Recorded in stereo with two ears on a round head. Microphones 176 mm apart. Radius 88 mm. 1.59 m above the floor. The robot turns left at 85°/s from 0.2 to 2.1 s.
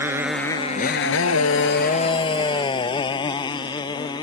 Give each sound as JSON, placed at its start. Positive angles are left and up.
{"t": 0.0, "sound": "a motorcycle", "side_deg": -10}